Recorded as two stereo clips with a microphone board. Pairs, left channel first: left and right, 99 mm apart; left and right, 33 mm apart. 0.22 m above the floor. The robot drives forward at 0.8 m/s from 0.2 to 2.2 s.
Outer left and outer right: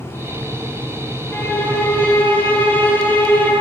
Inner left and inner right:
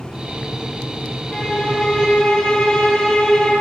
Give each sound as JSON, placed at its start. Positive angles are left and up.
{"t": 1.3, "sound": "a violin", "side_deg": 25, "distance_m": 6.0}